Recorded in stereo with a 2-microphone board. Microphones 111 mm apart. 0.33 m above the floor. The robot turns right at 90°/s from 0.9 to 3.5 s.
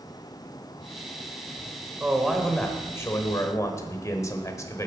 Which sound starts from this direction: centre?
A man speaking, at 2.0 s.